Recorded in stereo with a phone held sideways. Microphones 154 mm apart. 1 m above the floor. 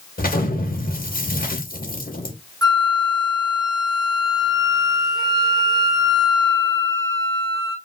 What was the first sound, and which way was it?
An explosion, 65° left (ahead or behind).